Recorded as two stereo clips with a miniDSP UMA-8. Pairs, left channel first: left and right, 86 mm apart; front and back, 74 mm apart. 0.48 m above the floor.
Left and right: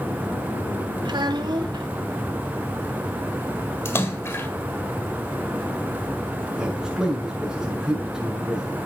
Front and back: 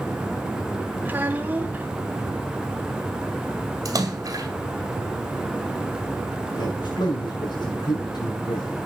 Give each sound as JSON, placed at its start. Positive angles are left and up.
{"t": 1.1, "sound": "a child speaking", "azimuth_deg": -115, "distance_m": 2.0}
{"t": 3.9, "sound": "a splash", "azimuth_deg": 145, "distance_m": 2.0}
{"t": 6.6, "sound": "a man speaking", "azimuth_deg": -5, "distance_m": 6.0}